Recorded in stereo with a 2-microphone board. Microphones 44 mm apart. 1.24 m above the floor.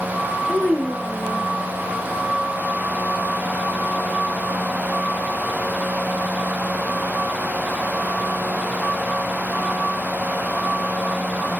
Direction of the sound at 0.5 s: 20° left (ahead or behind).